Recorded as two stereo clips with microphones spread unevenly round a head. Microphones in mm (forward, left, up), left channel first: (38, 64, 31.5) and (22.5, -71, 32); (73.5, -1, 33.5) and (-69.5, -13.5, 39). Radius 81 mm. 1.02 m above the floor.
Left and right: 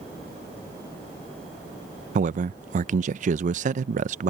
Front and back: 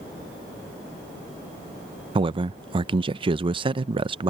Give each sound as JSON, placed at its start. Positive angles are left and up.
{"t": 2.1, "sound": "a man speaking", "azimuth_deg": -120}